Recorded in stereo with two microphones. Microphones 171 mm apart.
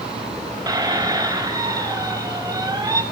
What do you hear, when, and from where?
0.7 s a squeak: 20° right (ahead or behind), 1.0 m